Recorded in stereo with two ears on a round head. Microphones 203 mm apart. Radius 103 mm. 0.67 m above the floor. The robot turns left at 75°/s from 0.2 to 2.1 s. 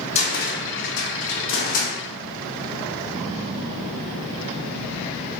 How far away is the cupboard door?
About 0.8 m.